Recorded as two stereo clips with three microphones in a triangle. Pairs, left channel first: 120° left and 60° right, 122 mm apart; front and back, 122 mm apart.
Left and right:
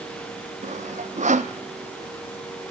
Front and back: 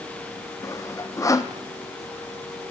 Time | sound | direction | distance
0.6 | sawing | 60° right | 1.2 m